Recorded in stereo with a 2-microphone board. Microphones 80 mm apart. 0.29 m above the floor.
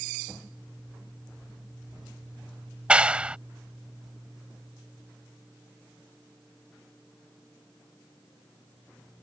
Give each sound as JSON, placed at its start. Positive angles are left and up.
{"t": 2.9, "sound": "a clap", "side_deg": -15}